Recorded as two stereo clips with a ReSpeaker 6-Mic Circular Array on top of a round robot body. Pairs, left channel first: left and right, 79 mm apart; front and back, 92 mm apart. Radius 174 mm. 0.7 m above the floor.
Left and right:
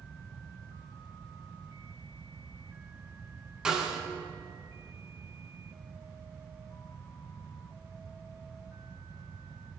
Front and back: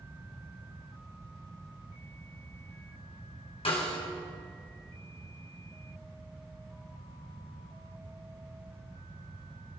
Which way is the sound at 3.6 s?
10° right.